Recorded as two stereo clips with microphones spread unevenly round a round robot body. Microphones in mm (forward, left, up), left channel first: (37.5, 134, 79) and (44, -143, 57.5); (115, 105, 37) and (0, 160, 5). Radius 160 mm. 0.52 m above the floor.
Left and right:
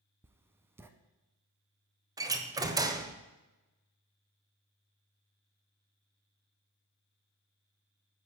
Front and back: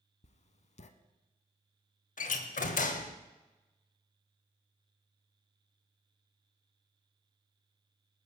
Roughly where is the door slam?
Ahead.